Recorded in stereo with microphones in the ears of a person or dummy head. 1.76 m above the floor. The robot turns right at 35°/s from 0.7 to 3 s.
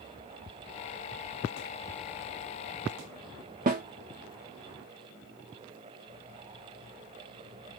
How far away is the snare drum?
About 0.8 m.